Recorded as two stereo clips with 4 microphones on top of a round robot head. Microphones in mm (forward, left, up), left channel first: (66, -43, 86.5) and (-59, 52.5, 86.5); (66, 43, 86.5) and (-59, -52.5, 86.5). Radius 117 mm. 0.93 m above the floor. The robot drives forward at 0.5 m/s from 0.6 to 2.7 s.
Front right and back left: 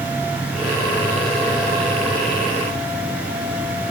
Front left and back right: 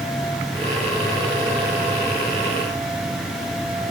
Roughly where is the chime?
I don't hear a chime.